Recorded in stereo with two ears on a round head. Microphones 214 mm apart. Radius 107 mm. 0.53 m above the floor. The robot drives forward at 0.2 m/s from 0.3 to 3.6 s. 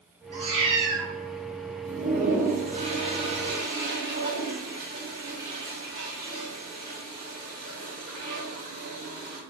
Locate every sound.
0.3 s a cat meowing: 25° right (ahead or behind), 0.9 m; by 1.1 s 30° right (ahead or behind), 0.7 m
1.9 s a toilet flushing: 35° right (ahead or behind), 0.5 m; by 9.4 s 25° right (ahead or behind), 0.8 m